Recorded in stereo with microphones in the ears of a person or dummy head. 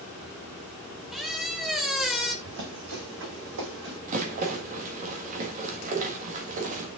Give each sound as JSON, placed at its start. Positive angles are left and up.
{"t": 1.1, "sound": "a squeak", "side_deg": 0, "distance_m": 0.9}
{"t": 2.5, "sound": "running footsteps", "side_deg": -70, "distance_m": 4.5}
{"t": 4.1, "sound": "a rattle", "side_deg": -45, "distance_m": 1.6}